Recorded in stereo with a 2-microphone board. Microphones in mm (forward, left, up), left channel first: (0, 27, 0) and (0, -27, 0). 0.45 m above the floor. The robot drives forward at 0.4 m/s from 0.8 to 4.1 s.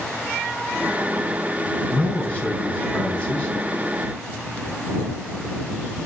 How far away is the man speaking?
About 4 m.